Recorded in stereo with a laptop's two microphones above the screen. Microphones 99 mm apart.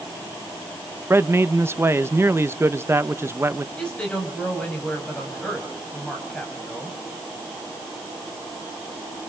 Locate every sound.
1.1 s a man speaking: 25° right (ahead or behind), 1.0 m
3.8 s a woman speaking: 10° left (ahead or behind), 5.5 m